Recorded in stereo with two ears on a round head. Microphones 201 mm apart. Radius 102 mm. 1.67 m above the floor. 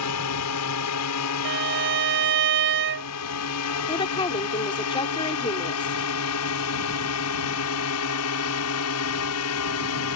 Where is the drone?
75° left (ahead or behind); by 10.2 s 65° left (ahead or behind).